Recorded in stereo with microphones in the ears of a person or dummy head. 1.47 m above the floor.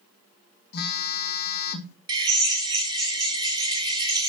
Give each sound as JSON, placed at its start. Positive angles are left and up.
{"t": 0.7, "sound": "a phone buzzing", "side_deg": 50, "distance_m": 1.4}
{"t": 2.1, "sound": "a drill", "side_deg": -20, "distance_m": 2.5}